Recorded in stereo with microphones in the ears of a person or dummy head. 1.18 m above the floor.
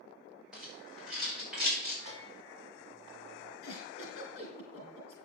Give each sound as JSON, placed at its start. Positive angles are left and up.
{"t": 0.5, "sound": "a rattle", "side_deg": -5, "distance_m": 6.0}
{"t": 2.0, "sound": "a bell", "side_deg": -35, "distance_m": 3.0}
{"t": 3.6, "sound": "a giggle", "side_deg": 65, "distance_m": 3.5}